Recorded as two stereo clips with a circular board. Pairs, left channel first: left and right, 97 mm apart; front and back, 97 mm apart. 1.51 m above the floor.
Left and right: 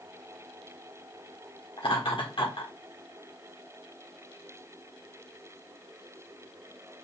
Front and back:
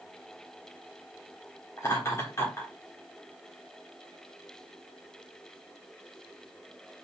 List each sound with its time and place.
1.8 s laughter: 60° left, 1.4 m